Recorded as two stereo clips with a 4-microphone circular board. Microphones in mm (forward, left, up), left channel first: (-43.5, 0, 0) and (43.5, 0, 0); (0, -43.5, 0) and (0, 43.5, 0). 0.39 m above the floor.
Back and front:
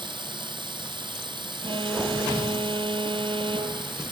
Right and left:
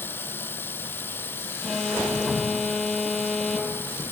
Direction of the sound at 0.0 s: 25° right.